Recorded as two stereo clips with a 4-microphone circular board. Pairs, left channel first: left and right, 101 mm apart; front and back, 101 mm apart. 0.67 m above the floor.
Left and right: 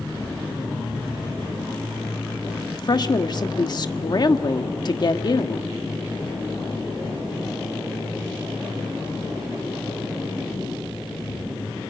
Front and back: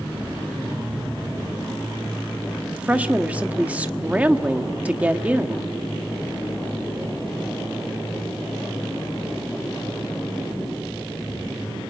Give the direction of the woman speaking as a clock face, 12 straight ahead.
8 o'clock.